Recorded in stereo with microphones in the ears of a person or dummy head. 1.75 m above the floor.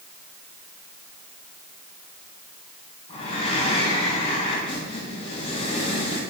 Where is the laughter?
No laughter in this recording.